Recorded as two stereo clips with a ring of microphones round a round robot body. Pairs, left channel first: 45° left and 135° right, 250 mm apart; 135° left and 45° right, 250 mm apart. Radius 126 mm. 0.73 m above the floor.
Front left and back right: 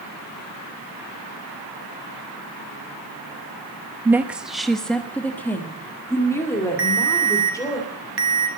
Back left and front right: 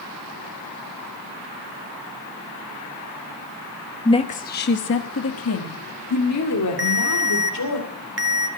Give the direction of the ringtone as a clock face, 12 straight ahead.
3 o'clock.